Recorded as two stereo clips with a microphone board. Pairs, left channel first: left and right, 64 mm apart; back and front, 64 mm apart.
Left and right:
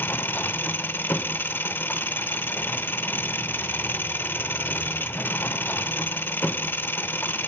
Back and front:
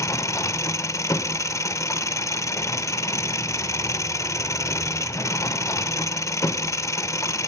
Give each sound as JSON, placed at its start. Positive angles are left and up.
{"t": 0.0, "sound": "an engine running", "azimuth_deg": 145, "distance_m": 0.8}